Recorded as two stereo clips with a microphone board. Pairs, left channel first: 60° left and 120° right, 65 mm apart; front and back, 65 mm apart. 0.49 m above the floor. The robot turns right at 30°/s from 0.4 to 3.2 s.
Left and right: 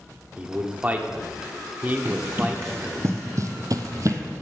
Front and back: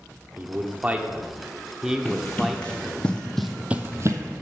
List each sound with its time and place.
0.4 s a man speaking: 160° right, 0.9 m; by 3.0 s 80° right, 0.9 m
2.0 s running footsteps: 85° right, 2 m; by 4.2 s 155° right, 0.9 m